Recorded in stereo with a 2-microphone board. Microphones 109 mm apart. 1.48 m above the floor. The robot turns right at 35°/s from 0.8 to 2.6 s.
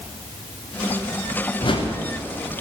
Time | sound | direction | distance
1.6 | a whoosh | 45° left (ahead or behind) | 0.7 m